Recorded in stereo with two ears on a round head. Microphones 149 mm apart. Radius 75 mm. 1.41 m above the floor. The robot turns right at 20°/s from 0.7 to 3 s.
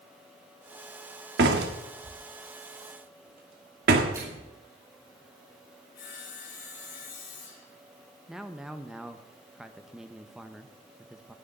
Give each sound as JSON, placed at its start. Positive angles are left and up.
{"t": 1.4, "sound": "a door slam", "side_deg": -70, "distance_m": 1.8}
{"t": 4.1, "sound": "a microwave", "side_deg": -20, "distance_m": 6.0}
{"t": 6.0, "sound": "sawing", "side_deg": 70, "distance_m": 5.0}
{"t": 8.3, "sound": "a man speaking", "side_deg": -5, "distance_m": 1.1}